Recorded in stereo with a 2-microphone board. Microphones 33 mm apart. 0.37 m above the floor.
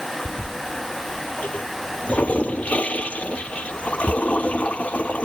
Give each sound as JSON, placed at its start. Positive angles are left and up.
{"t": 0.2, "sound": "a toilet flushing", "side_deg": 45}